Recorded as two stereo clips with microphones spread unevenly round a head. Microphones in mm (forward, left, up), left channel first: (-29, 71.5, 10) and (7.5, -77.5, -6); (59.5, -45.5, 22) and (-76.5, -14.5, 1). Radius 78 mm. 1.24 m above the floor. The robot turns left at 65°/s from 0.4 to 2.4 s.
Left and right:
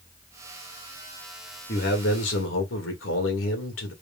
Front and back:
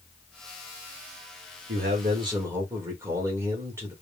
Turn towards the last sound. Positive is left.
turn(degrees=95)